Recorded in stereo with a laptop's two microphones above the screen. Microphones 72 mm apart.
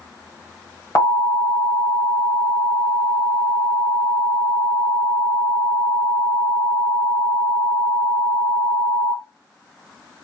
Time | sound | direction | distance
0.9 | an alarm | 45° left (ahead or behind) | 1.4 m